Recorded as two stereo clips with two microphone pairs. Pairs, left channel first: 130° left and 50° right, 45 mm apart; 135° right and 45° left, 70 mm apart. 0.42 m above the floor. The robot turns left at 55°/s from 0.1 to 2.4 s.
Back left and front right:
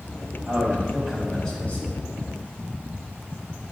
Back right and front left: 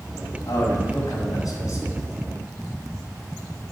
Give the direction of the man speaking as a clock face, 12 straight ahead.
3 o'clock.